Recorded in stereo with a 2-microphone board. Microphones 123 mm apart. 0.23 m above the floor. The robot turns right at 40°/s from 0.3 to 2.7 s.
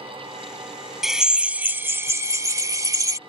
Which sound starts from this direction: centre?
A drill, at 1.0 s.